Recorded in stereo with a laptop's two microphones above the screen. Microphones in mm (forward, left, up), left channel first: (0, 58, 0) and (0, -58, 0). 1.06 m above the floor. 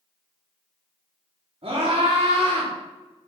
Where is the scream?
60° right (ahead or behind), 3 m.